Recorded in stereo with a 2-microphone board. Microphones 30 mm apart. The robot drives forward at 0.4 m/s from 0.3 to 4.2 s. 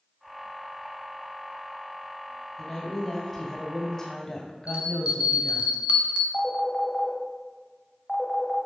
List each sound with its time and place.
2.6 s a woman speaking: 20° left (ahead or behind), 1.8 m; by 5.7 s 25° left (ahead or behind), 1.5 m
4.7 s a bell: 50° right (ahead or behind), 1.2 m
6.3 s a phone ringing: 20° left (ahead or behind), 1.1 m